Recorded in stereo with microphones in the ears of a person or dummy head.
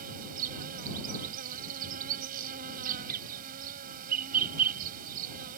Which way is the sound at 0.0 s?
50° right (ahead or behind).